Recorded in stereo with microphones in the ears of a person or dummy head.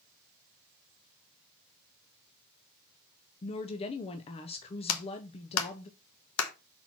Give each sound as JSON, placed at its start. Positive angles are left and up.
{"t": 3.4, "sound": "a woman speaking", "side_deg": 25, "distance_m": 0.6}
{"t": 4.9, "sound": "a clap", "side_deg": 85, "distance_m": 1.2}